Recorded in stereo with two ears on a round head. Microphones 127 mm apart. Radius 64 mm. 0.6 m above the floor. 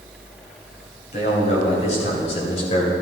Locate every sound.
1.1 s a man speaking: 50° left (ahead or behind), 3 m; by 2.9 s 45° left (ahead or behind), 2 m